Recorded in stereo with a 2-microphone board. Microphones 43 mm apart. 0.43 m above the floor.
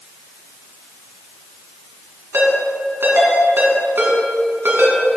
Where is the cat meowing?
No cat meowing in this recording.